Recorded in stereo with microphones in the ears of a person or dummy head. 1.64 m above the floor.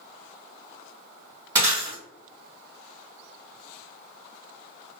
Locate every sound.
1.6 s breaking glass: 15° right (ahead or behind), 1.3 m